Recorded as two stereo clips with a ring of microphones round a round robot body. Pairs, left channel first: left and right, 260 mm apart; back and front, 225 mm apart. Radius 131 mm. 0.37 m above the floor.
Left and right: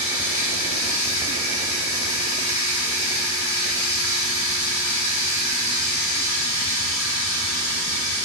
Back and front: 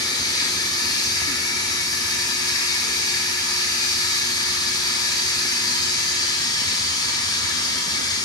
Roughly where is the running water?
Left.